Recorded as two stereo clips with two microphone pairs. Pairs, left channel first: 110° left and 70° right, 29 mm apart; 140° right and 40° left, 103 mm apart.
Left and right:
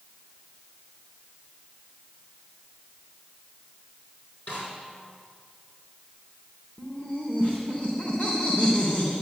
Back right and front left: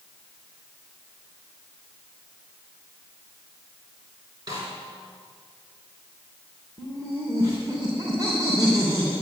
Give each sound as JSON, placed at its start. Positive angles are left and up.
{"t": 4.5, "sound": "a snare drum", "azimuth_deg": 95, "distance_m": 5.0}
{"t": 6.8, "sound": "laughter", "azimuth_deg": 85, "distance_m": 2.5}